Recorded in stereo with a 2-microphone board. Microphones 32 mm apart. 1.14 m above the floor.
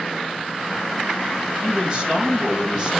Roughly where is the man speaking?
Centre.